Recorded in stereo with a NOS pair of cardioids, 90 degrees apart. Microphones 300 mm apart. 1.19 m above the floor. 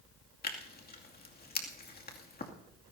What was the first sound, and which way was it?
Tearing paper, 30° left.